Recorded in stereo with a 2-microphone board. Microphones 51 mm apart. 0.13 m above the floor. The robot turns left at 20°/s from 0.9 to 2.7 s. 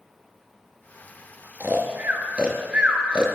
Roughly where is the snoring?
Right.